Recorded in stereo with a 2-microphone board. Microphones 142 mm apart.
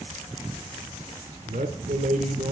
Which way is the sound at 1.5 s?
60° right (ahead or behind).